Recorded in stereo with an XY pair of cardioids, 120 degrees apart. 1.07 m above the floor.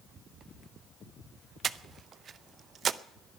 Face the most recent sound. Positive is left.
turn(degrees=-45)